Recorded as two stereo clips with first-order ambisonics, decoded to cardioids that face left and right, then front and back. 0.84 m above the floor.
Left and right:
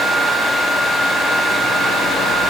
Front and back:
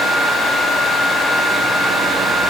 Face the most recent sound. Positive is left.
No sound to turn to.